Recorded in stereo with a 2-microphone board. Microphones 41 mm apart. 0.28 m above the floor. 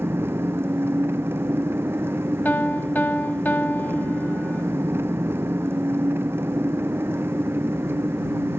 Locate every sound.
0.0 s an engine running: 70° right (ahead or behind)
2.5 s a piano: 45° left (ahead or behind)